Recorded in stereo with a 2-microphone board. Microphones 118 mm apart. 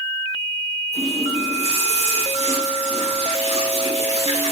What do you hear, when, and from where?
0.9 s a running tap: 70° right (ahead or behind), 4 m